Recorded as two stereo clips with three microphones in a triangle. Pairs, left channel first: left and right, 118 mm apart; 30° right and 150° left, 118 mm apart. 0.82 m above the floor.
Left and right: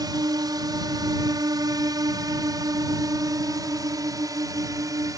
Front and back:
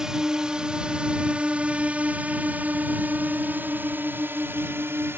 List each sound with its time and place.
0.0 s a drone: 125° right; by 5.2 s 145° right